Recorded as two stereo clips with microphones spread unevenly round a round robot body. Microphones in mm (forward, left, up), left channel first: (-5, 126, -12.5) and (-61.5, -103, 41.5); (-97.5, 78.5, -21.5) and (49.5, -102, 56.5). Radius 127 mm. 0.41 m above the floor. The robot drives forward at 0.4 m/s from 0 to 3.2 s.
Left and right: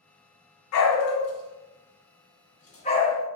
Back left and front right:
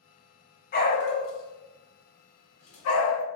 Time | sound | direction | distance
0.7 | a dog barking | 75° left | 0.6 m